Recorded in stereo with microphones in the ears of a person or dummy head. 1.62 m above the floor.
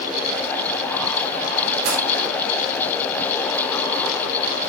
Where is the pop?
75° right (ahead or behind), 10 m.